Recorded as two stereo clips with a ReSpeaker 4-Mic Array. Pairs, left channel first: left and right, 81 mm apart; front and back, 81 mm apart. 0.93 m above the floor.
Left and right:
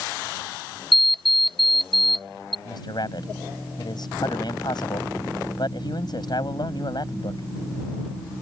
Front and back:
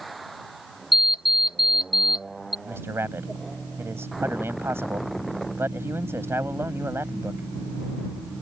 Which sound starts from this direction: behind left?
A man speaking, at 2.6 s.